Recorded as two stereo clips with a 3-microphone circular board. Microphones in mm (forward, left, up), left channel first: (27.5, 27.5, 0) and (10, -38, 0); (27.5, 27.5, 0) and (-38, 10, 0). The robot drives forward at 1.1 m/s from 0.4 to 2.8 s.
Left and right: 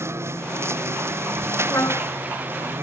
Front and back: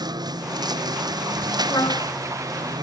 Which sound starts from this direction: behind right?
A lawn mower, at 0.0 s.